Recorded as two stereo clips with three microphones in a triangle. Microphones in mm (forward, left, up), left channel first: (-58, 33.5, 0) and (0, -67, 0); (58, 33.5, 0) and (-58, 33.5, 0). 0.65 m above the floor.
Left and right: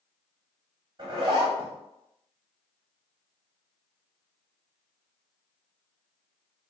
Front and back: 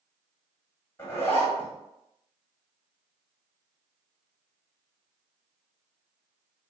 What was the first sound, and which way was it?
A zipper, 55° right.